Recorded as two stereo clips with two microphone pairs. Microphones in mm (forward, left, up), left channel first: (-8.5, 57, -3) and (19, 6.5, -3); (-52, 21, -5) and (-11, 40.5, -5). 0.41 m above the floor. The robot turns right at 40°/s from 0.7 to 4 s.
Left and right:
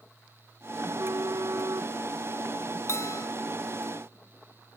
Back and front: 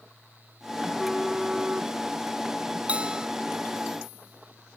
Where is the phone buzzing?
80° right; by 2.8 s straight ahead.